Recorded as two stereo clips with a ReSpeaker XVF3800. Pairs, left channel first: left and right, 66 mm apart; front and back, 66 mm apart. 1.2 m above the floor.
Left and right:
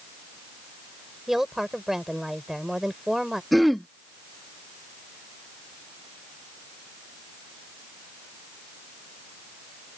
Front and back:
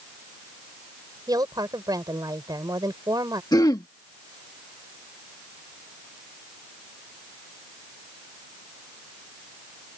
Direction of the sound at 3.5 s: Straight ahead.